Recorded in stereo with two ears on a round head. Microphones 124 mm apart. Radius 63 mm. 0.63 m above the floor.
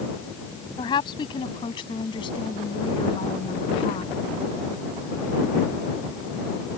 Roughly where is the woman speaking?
Left.